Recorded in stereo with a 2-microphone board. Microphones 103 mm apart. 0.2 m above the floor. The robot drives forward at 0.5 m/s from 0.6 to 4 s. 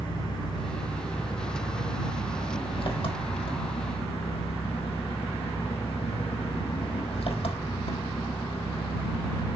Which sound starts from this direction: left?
An engine running, at 0.0 s.